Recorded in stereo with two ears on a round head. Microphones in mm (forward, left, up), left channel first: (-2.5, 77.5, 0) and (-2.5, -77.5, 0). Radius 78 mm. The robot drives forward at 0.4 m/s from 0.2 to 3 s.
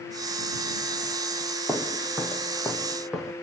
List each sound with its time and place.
1.7 s footsteps: 5° right (ahead or behind), 1.6 m; by 3.3 s 5° left (ahead or behind), 3 m